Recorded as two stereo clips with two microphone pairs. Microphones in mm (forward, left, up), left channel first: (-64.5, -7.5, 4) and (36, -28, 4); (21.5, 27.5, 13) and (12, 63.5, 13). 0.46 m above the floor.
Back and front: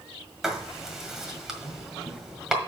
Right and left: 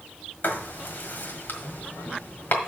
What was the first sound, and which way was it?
Writing, 100° right.